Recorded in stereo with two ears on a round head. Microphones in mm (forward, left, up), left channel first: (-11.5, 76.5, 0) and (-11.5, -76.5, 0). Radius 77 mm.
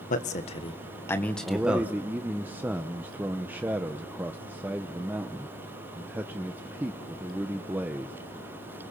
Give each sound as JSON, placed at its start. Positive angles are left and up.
{"t": 0.1, "sound": "a man speaking", "side_deg": 45, "distance_m": 1.8}
{"t": 1.4, "sound": "a man speaking", "side_deg": -10, "distance_m": 1.0}